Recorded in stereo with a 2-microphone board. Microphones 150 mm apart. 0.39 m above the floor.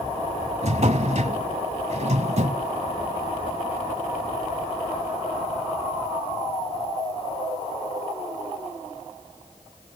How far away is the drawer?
About 1.1 m.